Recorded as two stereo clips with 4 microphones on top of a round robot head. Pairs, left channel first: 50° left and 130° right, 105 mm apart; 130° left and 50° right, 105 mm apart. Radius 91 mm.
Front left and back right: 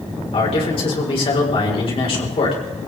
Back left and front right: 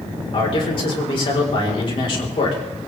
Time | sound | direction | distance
0.3 | a man speaking | 85° left | 4 m